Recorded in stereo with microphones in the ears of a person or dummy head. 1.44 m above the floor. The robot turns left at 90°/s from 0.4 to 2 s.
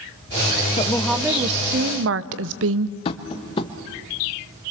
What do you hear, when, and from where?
0.8 s a woman speaking: 30° left, 0.7 m; by 3.0 s 80° right, 0.7 m
3.0 s tapping: 35° left (ahead or behind), 1.0 m